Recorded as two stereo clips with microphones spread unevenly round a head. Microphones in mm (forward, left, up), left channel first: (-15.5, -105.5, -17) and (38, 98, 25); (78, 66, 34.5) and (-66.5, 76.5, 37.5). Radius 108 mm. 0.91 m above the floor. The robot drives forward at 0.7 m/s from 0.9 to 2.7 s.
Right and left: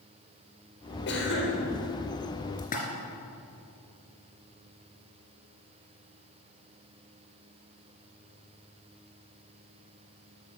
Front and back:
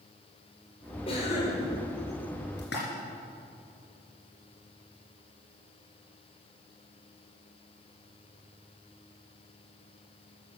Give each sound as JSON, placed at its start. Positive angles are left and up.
{"t": 1.1, "sound": "a cough", "azimuth_deg": -65, "distance_m": 3.5}
{"t": 2.6, "sound": "a splash", "azimuth_deg": -45, "distance_m": 3.0}